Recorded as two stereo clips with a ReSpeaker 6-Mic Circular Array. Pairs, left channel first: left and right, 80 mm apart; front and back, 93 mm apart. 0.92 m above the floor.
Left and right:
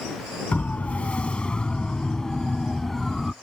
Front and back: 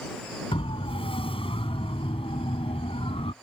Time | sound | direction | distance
0.5 | a siren | 15° left | ?